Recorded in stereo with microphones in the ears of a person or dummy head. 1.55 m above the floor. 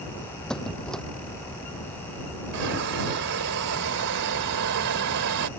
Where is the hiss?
70° right (ahead or behind).